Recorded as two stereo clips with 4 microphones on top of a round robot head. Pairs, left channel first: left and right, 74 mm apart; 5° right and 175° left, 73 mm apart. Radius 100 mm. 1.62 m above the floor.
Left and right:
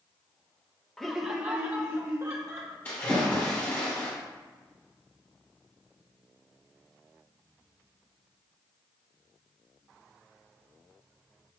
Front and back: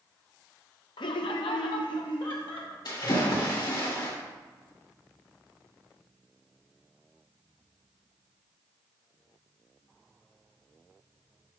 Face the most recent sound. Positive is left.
turn(degrees=20)